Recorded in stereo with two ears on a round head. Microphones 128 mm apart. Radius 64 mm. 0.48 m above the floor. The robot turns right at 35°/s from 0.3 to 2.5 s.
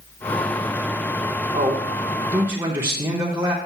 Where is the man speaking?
25° right (ahead or behind), 0.9 m; by 3.6 s 15° right (ahead or behind), 0.9 m.